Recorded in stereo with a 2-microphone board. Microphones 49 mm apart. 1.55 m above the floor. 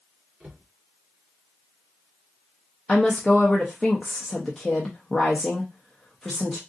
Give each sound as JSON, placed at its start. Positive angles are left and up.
{"t": 0.4, "sound": "a cupboard door", "side_deg": -40, "distance_m": 2.5}
{"t": 2.9, "sound": "a woman speaking", "side_deg": 5, "distance_m": 0.6}